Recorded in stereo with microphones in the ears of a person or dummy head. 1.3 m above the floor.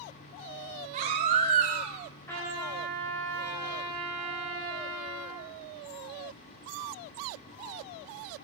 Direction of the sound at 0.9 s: 45° right (ahead or behind).